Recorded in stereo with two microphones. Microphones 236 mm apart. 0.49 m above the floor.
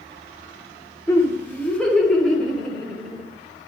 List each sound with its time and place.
1.1 s laughter: 10° left (ahead or behind), 1.4 m; by 3.2 s centre (ahead or behind), 2.5 m